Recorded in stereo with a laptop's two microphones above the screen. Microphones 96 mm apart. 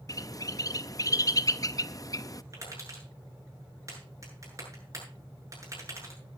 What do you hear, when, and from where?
0.1 s a bird: 40° left (ahead or behind), 0.5 m
2.5 s tapping: 35° right (ahead or behind), 8 m